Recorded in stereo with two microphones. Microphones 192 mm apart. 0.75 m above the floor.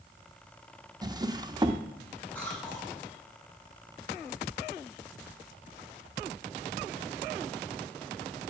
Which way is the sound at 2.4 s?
5° left (ahead or behind).